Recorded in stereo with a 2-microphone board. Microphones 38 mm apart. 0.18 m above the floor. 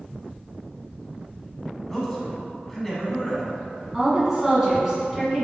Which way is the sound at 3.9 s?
15° right (ahead or behind).